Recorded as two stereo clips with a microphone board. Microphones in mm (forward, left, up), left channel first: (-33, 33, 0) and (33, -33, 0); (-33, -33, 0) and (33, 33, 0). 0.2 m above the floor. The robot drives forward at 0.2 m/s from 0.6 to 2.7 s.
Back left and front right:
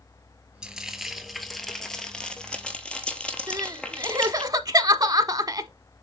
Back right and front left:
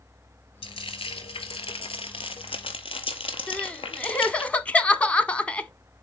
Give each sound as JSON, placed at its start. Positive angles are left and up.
{"t": 0.6, "sound": "frying", "azimuth_deg": -125, "distance_m": 0.7}
{"t": 3.5, "sound": "crying", "azimuth_deg": -65, "distance_m": 0.5}